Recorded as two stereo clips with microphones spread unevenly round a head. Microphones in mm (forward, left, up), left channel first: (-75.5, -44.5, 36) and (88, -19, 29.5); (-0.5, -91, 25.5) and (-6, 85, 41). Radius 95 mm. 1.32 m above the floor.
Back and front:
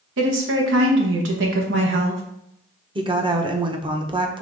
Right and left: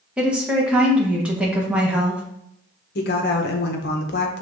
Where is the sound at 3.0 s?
55° right, 0.9 m.